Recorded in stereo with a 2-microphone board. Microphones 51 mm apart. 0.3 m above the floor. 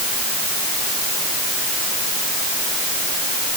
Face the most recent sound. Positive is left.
No sound to turn to.